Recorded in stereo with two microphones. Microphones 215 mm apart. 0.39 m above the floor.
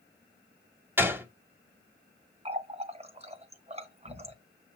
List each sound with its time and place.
1.0 s a gunshot: 10° right (ahead or behind), 1.8 m
2.5 s a running tap: 30° right (ahead or behind), 1.2 m